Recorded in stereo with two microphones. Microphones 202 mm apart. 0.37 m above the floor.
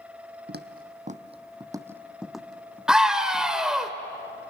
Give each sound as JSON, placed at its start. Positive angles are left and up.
{"t": 0.5, "sound": "footsteps", "side_deg": -55, "distance_m": 1.0}
{"t": 2.9, "sound": "a scream", "side_deg": -5, "distance_m": 1.3}